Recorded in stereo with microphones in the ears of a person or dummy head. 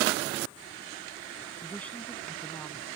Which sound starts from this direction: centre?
A woman speaking, at 1.6 s.